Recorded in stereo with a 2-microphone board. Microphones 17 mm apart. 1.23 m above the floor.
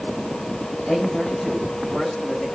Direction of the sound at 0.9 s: 40° left (ahead or behind).